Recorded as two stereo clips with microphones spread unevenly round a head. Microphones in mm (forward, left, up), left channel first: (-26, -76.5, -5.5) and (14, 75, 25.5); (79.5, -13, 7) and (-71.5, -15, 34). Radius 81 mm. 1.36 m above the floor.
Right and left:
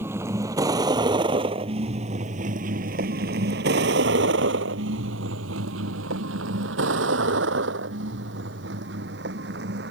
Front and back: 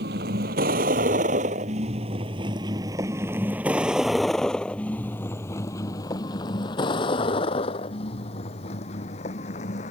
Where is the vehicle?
150° left; by 9.9 s 50° left.